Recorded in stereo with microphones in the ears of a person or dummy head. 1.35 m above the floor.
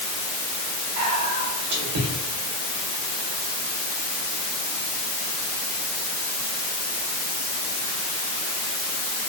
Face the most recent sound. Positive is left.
turn(degrees=-80)